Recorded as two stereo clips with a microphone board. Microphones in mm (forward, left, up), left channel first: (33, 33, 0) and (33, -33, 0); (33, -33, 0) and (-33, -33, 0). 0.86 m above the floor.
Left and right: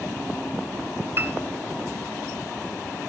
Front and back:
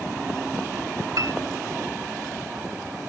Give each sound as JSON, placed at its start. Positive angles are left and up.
{"t": 1.2, "sound": "a piano", "azimuth_deg": -145, "distance_m": 2.0}